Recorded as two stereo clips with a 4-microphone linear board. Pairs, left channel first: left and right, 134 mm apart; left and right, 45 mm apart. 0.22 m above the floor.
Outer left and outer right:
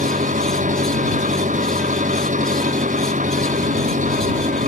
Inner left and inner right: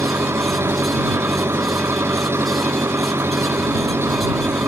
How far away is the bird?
No bird in this recording.